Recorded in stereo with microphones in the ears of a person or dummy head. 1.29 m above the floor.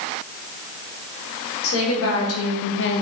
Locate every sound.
1.6 s a woman speaking: 75° left (ahead or behind), 1.5 m; by 3.0 s 45° left (ahead or behind), 0.6 m